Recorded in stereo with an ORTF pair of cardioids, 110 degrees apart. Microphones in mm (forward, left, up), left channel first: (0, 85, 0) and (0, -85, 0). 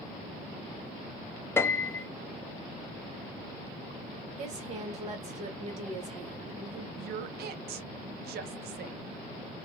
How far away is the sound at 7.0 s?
About 0.7 m.